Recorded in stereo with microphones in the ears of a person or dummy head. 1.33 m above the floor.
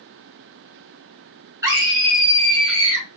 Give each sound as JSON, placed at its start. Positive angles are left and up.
{"t": 1.6, "sound": "a scream", "side_deg": -15, "distance_m": 3.5}